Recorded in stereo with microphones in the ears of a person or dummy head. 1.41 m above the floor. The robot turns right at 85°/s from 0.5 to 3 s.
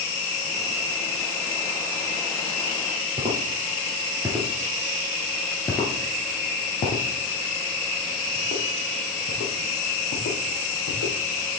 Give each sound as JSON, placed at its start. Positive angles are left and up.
{"t": 3.2, "sound": "footsteps", "side_deg": -25, "distance_m": 1.8}